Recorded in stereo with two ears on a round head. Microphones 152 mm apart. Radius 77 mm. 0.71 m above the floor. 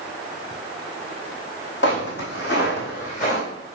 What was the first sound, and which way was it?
Footsteps, 75° left (ahead or behind).